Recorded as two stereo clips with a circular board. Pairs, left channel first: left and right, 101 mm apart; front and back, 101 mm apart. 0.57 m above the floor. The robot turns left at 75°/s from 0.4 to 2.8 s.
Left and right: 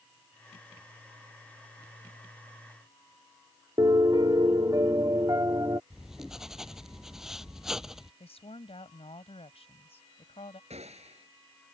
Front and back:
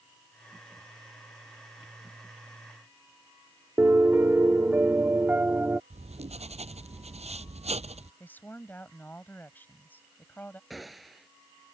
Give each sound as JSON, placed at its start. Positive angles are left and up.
{"t": 3.8, "sound": "a piano", "azimuth_deg": -115}
{"t": 5.9, "sound": "writing", "azimuth_deg": -175}
{"t": 8.2, "sound": "a woman speaking", "azimuth_deg": 75}
{"t": 10.7, "sound": "a gunshot", "azimuth_deg": -90}